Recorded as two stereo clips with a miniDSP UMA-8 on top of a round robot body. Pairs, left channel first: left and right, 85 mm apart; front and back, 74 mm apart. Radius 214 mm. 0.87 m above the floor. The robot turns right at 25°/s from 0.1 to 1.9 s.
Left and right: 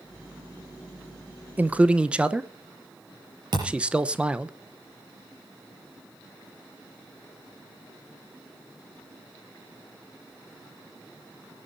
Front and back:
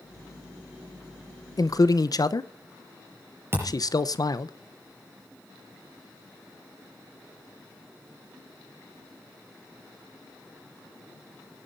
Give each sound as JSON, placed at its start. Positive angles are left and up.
{"t": 1.6, "sound": "a man speaking", "azimuth_deg": -25, "distance_m": 1.1}
{"t": 3.5, "sound": "a thud", "azimuth_deg": -120, "distance_m": 5.0}